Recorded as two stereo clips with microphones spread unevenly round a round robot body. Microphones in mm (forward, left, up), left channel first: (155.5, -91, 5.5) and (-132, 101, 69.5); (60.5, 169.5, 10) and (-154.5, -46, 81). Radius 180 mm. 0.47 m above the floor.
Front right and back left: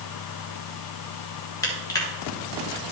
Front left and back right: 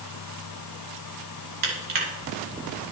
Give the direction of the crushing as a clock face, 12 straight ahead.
4 o'clock.